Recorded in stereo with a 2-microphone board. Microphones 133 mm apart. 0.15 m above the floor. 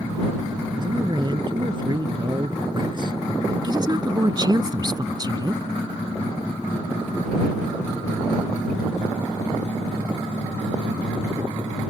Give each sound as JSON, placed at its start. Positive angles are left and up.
{"t": 0.8, "sound": "a man speaking", "side_deg": -35}
{"t": 3.6, "sound": "a woman speaking", "side_deg": -35}